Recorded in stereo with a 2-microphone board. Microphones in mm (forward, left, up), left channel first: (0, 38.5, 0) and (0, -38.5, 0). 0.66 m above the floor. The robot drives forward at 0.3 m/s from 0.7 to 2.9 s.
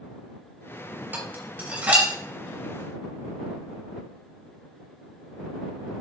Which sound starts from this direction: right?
Dishes clattering, at 1.1 s.